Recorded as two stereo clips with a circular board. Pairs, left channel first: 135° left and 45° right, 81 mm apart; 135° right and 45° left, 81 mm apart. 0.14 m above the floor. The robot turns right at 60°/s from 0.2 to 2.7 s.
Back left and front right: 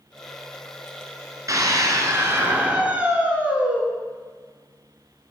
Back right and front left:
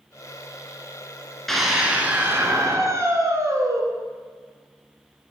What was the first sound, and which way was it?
A scream, 50° right.